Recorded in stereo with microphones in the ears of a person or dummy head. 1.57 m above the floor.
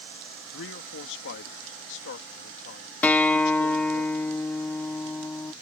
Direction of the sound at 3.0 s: 10° left (ahead or behind).